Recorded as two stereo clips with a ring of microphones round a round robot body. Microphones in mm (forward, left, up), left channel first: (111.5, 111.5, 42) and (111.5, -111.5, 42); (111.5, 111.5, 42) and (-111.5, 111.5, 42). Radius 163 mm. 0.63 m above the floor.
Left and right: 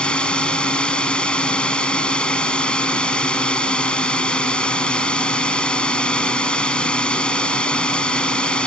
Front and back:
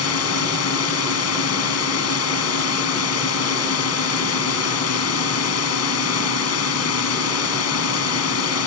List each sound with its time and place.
0.0 s a drone: 5° left